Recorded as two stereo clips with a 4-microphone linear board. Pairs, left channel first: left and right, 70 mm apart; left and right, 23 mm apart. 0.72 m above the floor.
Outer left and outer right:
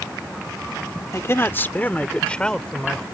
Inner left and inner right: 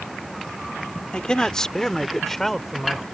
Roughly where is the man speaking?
Left.